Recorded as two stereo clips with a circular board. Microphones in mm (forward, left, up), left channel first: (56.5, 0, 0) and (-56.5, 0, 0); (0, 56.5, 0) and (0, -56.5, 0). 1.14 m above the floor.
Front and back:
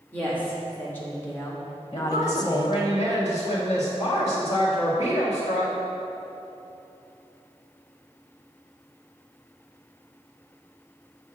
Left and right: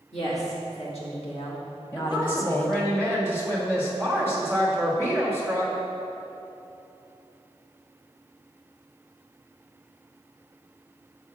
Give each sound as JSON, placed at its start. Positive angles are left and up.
{"t": 0.1, "sound": "a woman speaking", "azimuth_deg": 75, "distance_m": 2.5}
{"t": 1.9, "sound": "a woman speaking", "azimuth_deg": 20, "distance_m": 2.0}